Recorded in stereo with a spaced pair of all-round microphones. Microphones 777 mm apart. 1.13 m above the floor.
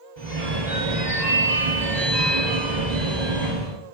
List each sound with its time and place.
0.2 s a phone ringing: 60° right (ahead or behind), 1.0 m